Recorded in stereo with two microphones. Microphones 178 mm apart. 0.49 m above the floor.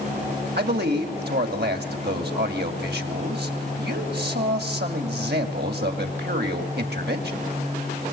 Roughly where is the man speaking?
Right.